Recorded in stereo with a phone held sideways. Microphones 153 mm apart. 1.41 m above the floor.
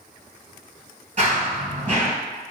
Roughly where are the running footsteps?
Right.